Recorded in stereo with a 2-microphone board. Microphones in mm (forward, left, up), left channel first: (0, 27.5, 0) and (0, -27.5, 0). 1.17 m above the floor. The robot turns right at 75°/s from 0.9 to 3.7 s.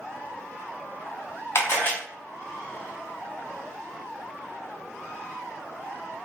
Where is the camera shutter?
55° left (ahead or behind), 0.9 m; by 1.9 s 35° left (ahead or behind), 0.9 m.